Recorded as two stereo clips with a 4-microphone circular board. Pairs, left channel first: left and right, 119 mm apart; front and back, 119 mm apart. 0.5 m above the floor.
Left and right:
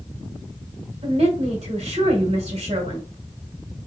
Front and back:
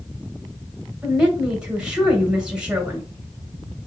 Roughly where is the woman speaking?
Right.